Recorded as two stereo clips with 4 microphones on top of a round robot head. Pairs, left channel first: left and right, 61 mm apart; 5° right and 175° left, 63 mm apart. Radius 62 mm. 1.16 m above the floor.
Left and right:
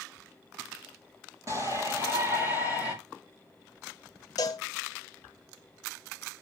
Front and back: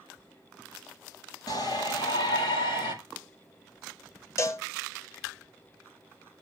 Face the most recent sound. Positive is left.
turn(degrees=40)